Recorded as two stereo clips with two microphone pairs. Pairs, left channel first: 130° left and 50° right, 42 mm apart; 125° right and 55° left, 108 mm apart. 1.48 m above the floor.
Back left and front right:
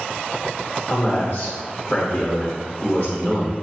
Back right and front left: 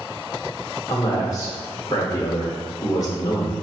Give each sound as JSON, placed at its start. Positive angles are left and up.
{"t": 0.9, "sound": "a man speaking", "azimuth_deg": 180, "distance_m": 1.0}